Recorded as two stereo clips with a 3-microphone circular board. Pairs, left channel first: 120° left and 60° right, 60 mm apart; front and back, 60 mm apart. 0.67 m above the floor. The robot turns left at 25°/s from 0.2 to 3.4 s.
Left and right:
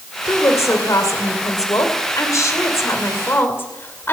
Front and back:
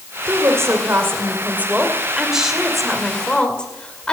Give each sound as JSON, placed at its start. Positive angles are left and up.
{"t": 0.3, "sound": "a woman speaking", "azimuth_deg": 150, "distance_m": 2.5}